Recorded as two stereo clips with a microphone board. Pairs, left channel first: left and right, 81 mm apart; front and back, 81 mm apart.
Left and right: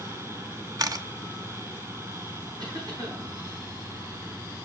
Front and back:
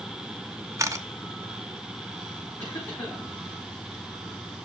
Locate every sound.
0.8 s a camera shutter: 130° right, 0.5 m
2.6 s a cough: 55° right, 5 m